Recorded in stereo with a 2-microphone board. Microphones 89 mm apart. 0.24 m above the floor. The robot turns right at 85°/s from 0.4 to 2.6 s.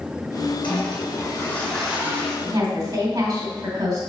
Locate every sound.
0.6 s a toilet flushing: 80° left, 3.5 m; by 2.4 s 135° right, 3.5 m
2.5 s a woman speaking: 50° right (ahead or behind), 2.5 m; by 4.0 s 45° right (ahead or behind), 2.5 m